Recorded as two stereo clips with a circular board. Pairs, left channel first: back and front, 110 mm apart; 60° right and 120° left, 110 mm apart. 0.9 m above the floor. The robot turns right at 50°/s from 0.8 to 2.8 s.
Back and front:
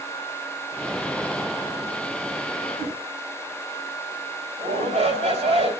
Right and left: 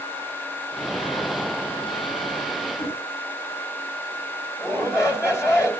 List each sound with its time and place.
2.8 s a whoosh: 60° right, 8 m
4.6 s a shout: 5° left, 3.5 m